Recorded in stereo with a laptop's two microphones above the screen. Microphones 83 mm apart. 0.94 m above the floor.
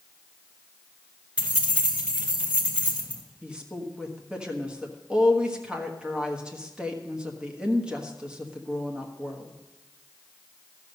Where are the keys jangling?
15° right (ahead or behind), 2.0 m.